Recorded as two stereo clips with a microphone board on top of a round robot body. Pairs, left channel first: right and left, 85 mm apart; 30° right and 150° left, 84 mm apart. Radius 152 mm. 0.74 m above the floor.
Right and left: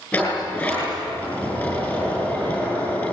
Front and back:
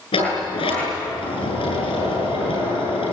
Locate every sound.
0.1 s a sliding door: 20° right, 8.5 m